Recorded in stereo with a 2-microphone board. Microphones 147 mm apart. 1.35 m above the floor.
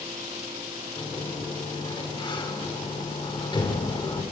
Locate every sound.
1.0 s a sliding door: 30° left (ahead or behind), 3 m